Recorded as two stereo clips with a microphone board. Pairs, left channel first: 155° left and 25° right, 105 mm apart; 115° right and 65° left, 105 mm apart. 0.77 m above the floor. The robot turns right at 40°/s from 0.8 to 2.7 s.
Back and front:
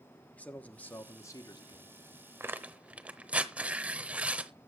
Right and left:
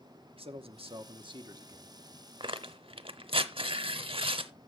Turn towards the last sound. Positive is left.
turn(degrees=50)